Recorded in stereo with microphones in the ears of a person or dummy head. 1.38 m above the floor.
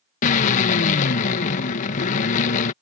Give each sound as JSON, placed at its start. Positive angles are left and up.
{"t": 0.2, "sound": "a drill", "side_deg": 40}